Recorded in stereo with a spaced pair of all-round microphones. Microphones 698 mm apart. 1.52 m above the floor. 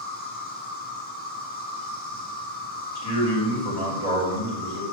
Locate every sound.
0.0 s an insect: 15° left (ahead or behind), 1.2 m
3.0 s a man speaking: 35° left (ahead or behind), 2.5 m